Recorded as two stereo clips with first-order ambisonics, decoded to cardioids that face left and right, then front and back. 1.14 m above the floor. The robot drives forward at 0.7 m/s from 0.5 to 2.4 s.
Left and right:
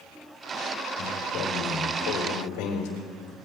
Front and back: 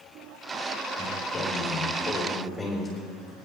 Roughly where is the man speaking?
Ahead left.